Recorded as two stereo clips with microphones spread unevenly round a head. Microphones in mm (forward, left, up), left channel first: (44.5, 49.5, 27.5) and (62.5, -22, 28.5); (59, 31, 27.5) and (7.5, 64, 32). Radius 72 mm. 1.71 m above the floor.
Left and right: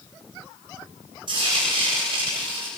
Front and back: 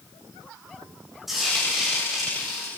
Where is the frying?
125° right, 8 m.